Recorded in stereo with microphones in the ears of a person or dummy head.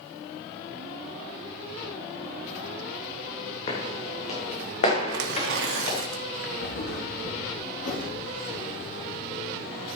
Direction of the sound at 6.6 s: 70° left (ahead or behind).